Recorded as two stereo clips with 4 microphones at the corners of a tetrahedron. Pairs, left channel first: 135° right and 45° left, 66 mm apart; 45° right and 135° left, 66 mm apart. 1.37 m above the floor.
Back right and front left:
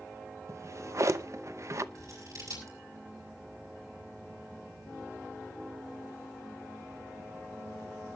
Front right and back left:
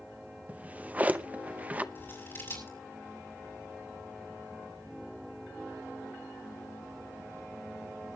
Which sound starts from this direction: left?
A drawer, at 0.5 s.